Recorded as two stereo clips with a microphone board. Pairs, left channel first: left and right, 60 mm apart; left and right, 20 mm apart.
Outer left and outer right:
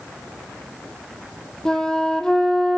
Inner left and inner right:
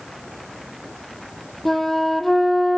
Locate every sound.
1.6 s a flute: 10° left (ahead or behind), 0.9 m